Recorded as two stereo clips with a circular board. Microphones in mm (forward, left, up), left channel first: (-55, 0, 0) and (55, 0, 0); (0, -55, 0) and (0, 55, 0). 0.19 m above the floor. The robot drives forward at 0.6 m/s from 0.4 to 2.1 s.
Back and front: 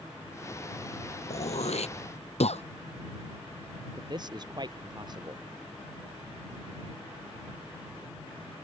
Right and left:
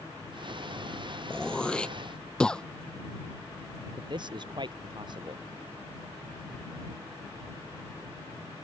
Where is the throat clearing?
170° right; by 2.6 s 175° right.